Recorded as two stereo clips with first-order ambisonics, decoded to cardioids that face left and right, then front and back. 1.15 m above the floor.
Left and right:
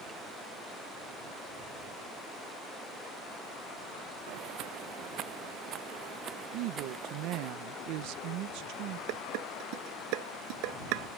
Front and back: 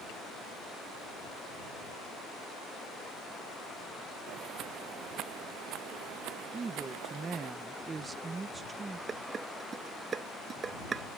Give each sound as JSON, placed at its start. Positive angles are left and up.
{"t": 4.3, "sound": "footsteps", "azimuth_deg": -125}
{"t": 6.5, "sound": "a woman speaking", "azimuth_deg": -110}
{"t": 9.1, "sound": "dishes clattering", "azimuth_deg": -110}